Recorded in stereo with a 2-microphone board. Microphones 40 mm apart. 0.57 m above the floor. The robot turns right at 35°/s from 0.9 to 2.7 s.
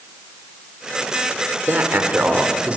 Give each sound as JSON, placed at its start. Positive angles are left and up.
{"t": 1.7, "sound": "a man speaking", "azimuth_deg": -80, "distance_m": 2.0}